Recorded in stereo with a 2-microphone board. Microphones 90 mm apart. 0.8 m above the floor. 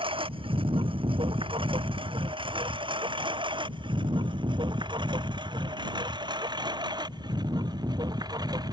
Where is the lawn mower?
85° right; by 8.7 s 50° right (ahead or behind).